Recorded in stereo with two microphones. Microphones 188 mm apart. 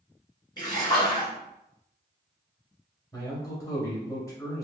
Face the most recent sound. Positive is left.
turn(degrees=15)  # may be behind; listen again after turning